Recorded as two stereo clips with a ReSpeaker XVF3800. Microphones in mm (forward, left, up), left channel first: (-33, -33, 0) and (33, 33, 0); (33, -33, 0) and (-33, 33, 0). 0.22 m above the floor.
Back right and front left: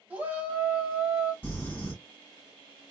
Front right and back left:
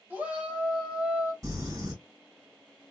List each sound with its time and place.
0.1 s a shout: 90° left, 1.5 m
1.4 s crumpling: 170° left, 2.0 m